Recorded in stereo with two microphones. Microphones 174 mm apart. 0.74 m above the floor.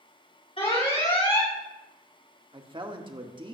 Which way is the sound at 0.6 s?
40° left (ahead or behind).